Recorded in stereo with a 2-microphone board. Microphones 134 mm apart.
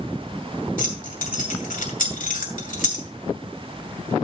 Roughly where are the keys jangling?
Left.